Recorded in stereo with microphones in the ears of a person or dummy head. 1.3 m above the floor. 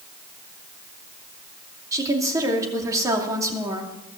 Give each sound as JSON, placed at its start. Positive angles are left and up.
{"t": 1.9, "sound": "a woman speaking", "side_deg": -20, "distance_m": 2.5}